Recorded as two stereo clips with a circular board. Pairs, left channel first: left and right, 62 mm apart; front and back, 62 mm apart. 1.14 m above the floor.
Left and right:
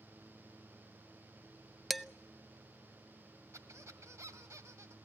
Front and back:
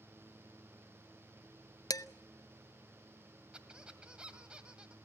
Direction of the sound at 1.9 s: Straight ahead.